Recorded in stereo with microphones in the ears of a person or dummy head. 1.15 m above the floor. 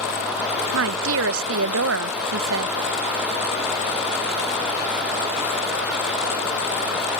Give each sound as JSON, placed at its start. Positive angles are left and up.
{"t": 0.7, "sound": "a woman speaking", "side_deg": -70}